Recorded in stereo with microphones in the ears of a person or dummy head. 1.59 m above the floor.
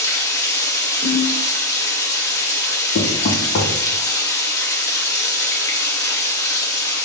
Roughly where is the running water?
Centre.